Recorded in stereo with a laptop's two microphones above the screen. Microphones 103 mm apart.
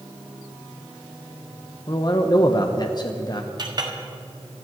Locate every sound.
1.9 s a man speaking: 40° left (ahead or behind), 0.8 m
3.6 s a clink: 45° right (ahead or behind), 1.4 m